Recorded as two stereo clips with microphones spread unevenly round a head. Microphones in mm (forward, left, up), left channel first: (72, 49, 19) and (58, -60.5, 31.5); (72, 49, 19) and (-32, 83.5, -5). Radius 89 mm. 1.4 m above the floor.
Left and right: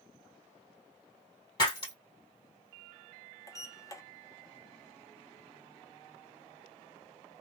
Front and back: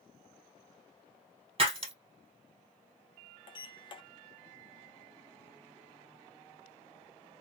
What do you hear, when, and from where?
1.6 s breaking glass: 140° left, 1.8 m
3.5 s a sliding door: 20° left, 0.8 m